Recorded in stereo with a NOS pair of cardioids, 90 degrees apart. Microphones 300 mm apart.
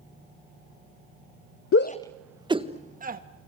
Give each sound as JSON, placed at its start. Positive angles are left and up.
{"t": 1.7, "sound": "a shout", "azimuth_deg": 50, "distance_m": 0.7}